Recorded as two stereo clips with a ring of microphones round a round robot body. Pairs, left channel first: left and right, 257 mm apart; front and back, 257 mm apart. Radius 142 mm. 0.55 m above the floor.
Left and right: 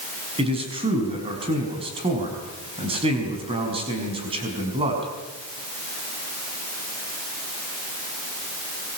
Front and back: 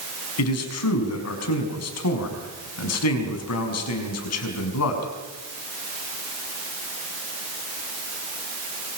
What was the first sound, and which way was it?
A man speaking, 20° right.